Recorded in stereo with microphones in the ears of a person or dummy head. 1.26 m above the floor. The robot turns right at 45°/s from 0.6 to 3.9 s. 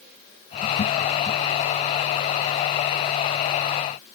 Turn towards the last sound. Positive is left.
No sound to turn to.